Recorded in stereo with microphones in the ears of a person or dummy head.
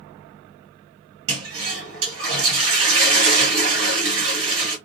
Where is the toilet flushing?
65° right (ahead or behind), 1.2 m.